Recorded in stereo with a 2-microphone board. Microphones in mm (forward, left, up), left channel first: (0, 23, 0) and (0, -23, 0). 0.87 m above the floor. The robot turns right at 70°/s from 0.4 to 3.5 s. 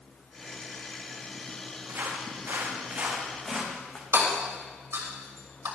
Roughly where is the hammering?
Right.